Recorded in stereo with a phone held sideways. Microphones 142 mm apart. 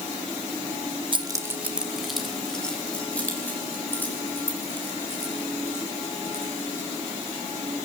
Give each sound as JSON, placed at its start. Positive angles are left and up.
{"t": 1.1, "sound": "keys jangling", "side_deg": -40, "distance_m": 1.0}